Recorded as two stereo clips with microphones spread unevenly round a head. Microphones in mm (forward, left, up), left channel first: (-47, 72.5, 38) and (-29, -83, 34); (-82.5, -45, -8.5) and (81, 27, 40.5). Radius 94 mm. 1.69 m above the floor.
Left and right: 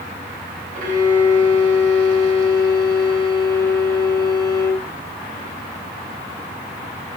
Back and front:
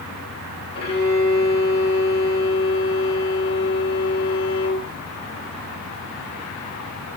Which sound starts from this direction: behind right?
A violin, at 0.8 s.